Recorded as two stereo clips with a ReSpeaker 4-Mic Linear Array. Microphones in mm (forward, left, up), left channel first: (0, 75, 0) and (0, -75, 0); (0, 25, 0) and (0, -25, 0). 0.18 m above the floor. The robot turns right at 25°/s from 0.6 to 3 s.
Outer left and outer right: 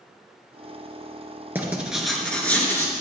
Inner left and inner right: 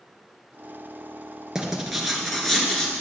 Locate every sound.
1.6 s writing: 15° right, 2.5 m; by 3.0 s 25° left, 2.5 m